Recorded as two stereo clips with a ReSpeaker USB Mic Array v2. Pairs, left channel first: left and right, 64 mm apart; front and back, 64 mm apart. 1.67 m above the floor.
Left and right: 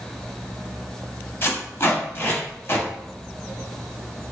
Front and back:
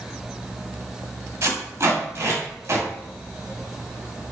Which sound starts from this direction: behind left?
Tape being pulled, at 1.4 s.